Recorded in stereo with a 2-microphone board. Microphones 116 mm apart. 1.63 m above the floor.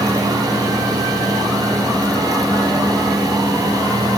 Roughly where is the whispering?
I don't hear whispering.